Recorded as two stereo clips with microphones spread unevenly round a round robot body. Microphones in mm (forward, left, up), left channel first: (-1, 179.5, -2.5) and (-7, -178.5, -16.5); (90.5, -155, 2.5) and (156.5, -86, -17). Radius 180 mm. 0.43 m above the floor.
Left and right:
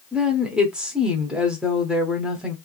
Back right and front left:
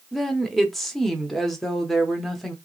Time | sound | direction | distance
0.1 | a woman speaking | 15° right | 0.7 m